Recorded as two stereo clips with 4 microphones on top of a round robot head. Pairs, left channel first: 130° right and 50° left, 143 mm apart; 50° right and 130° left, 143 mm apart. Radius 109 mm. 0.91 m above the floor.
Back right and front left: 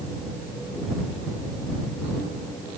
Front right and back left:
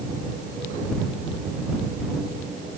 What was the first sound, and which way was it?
Only background noise.